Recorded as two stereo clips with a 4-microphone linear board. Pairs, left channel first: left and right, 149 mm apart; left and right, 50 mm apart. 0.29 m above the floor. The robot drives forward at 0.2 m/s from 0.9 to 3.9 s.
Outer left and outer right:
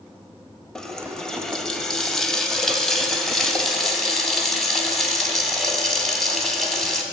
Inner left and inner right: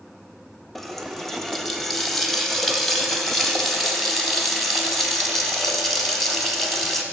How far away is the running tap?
About 0.6 m.